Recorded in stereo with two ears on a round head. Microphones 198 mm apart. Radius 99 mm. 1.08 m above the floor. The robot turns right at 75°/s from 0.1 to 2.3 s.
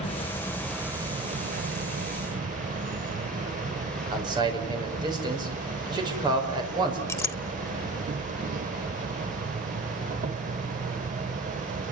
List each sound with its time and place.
0.0 s an insect: 135° left, 1.0 m; by 11.9 s 60° right, 1.0 m
4.1 s a man speaking: 20° right (ahead or behind), 5.5 m
7.1 s a clink: 10° left (ahead or behind), 0.6 m